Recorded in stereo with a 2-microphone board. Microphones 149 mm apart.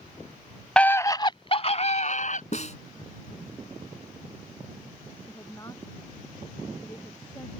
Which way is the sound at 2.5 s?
55° left (ahead or behind).